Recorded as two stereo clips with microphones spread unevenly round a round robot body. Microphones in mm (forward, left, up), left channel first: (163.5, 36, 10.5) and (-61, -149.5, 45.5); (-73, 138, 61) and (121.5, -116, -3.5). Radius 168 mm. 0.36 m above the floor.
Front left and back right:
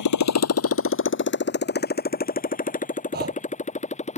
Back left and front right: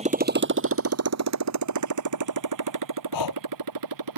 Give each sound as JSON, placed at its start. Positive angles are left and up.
{"t": 0.0, "sound": "a motorcycle", "azimuth_deg": 20}
{"t": 3.1, "sound": "breathing", "azimuth_deg": 155}